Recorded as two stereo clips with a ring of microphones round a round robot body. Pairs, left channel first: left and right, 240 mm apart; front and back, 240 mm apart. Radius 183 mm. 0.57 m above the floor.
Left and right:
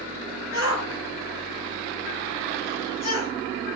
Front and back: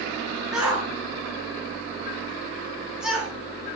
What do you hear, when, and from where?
0.5 s a shout: 90° left, 7.5 m